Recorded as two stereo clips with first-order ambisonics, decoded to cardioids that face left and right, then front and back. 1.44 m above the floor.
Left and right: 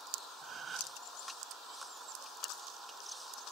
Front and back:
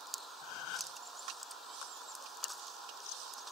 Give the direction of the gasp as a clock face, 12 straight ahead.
1 o'clock.